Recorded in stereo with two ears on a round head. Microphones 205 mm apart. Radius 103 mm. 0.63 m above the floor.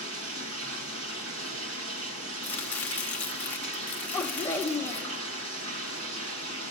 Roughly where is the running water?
Right.